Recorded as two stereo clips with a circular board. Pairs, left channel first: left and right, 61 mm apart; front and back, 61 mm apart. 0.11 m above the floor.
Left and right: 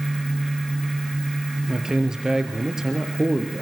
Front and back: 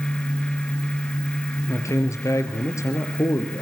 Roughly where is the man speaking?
Ahead.